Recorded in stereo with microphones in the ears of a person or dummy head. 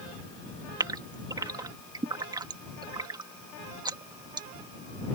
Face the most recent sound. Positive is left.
turn(degrees=-20)  # may be behind; listen again after turning